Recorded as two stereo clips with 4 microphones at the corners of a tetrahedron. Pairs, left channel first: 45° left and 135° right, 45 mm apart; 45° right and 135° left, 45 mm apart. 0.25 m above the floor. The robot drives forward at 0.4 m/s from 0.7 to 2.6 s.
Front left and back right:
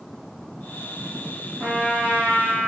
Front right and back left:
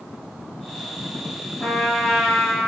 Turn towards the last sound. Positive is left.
turn(degrees=-120)